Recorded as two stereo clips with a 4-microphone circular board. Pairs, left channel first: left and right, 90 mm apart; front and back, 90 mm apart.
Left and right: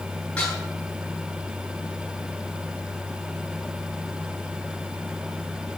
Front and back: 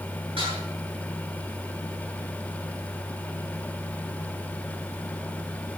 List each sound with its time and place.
0.4 s dishes clattering: 170° left, 9 m